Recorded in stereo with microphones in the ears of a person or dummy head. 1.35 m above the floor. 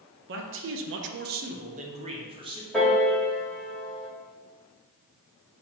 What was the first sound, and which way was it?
A man speaking, 50° right (ahead or behind).